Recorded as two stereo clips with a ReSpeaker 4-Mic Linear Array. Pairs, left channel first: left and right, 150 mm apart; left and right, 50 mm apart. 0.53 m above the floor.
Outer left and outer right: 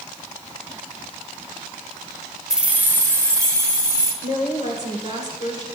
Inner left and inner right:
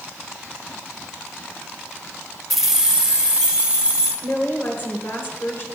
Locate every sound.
2.5 s keys jangling: 5° right (ahead or behind), 0.6 m; by 4.1 s 20° right (ahead or behind), 2.5 m
4.2 s a woman speaking: 50° left (ahead or behind), 2.5 m